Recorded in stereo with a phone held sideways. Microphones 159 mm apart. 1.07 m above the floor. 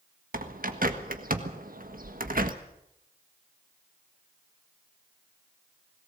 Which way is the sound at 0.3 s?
65° right (ahead or behind).